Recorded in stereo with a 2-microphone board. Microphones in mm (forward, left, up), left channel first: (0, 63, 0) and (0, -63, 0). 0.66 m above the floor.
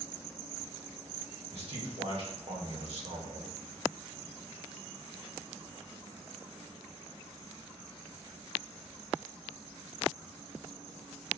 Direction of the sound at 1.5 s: 55° right (ahead or behind).